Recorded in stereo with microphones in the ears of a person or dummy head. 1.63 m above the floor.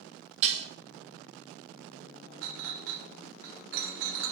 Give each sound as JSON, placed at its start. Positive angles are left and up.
{"t": 0.4, "sound": "dishes clattering", "side_deg": -40, "distance_m": 1.2}
{"t": 2.4, "sound": "a clink", "side_deg": -60, "distance_m": 0.9}